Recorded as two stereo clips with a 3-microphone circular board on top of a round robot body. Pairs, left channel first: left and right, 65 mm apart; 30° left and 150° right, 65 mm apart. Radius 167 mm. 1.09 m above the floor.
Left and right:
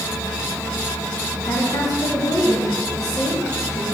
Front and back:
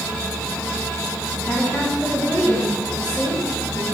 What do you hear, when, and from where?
1.4 s a woman speaking: 110° left, 2 m